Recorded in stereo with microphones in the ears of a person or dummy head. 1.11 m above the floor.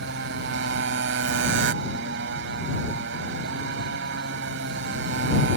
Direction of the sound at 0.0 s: 70° right (ahead or behind).